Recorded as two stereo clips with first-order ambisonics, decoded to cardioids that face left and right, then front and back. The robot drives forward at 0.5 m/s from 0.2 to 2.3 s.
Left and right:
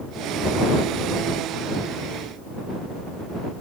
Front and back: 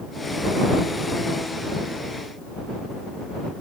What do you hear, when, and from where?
Only background noise.